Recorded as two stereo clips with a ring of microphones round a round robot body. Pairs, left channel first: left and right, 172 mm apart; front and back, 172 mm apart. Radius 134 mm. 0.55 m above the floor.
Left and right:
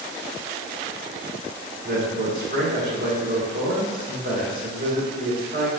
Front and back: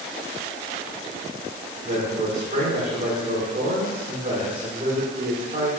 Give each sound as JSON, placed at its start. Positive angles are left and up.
{"t": 1.8, "sound": "a man speaking", "azimuth_deg": -120, "distance_m": 1.4}